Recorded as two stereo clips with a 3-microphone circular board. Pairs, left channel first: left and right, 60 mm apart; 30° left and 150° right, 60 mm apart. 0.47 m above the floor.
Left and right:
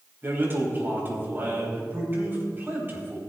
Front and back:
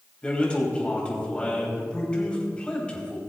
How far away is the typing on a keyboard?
I don't hear typing on a keyboard.